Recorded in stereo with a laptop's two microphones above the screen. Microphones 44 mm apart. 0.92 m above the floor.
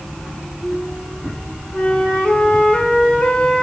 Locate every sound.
1.7 s a flute: 25° left (ahead or behind), 1.4 m